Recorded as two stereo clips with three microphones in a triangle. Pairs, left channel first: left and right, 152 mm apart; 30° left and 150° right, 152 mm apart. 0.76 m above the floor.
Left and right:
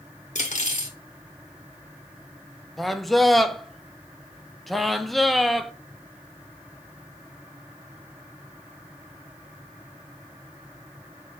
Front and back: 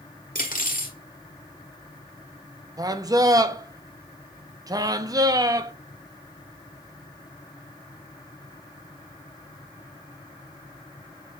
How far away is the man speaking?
About 0.5 m.